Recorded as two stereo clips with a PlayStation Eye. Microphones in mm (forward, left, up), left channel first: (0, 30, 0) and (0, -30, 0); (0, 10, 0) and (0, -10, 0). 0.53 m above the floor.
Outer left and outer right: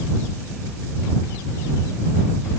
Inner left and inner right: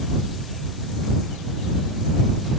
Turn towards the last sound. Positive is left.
No sound to turn to.